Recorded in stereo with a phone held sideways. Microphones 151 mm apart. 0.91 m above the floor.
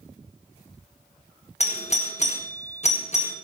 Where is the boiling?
No boiling in this recording.